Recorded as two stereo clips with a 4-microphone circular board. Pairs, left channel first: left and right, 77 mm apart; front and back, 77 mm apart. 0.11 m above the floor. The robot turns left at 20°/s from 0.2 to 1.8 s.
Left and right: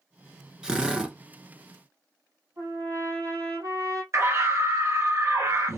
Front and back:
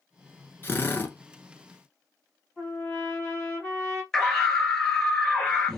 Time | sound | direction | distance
0.6 | a drill | 20° right | 0.9 m
2.6 | a trumpet | 70° right | 2.5 m
4.1 | a scream | 80° right | 1.7 m